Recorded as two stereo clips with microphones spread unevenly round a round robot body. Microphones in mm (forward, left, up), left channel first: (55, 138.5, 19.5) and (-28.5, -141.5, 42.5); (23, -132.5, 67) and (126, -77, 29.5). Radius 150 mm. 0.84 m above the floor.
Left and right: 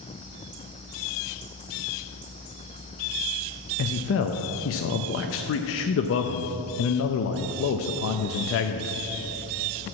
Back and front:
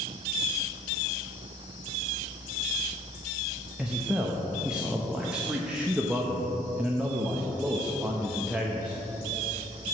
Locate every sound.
3.8 s a man speaking: 95° left, 0.5 m